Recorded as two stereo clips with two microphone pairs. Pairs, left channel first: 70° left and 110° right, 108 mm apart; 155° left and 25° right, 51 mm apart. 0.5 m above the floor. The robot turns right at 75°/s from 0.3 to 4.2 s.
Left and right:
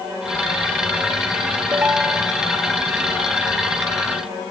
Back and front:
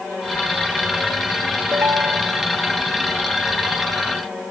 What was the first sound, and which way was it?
A ringtone, 50° right.